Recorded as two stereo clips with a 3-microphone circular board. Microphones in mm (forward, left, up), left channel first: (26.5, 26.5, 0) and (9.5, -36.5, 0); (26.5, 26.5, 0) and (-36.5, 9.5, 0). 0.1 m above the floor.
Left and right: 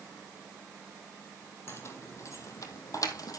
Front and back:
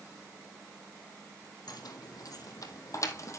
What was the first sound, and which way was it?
Keys jangling, 25° left.